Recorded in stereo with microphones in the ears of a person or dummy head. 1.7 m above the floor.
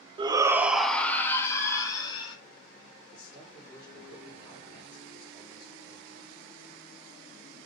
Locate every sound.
0.2 s a shout: 30° right (ahead or behind), 0.8 m; by 2.4 s 30° left (ahead or behind), 2 m
3.1 s a man speaking: 30° left (ahead or behind), 4 m